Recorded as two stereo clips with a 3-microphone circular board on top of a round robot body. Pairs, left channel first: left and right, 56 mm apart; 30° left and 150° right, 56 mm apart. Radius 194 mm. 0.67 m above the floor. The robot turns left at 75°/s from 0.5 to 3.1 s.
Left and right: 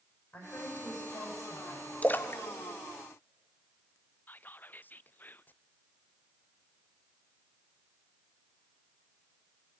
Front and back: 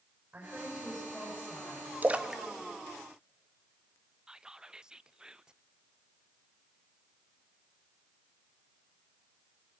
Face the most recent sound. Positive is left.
turn(degrees=135)